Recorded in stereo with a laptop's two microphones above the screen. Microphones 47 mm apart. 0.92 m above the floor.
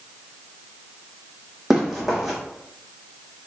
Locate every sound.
1.7 s running footsteps: 5° right (ahead or behind), 1.6 m